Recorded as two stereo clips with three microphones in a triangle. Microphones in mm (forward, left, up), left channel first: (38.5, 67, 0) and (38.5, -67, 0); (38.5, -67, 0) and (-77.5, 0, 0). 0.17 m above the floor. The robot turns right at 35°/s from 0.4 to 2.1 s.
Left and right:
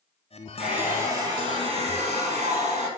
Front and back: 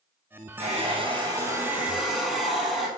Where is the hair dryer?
175° right, 4.5 m; by 2.9 s 120° right, 4.5 m.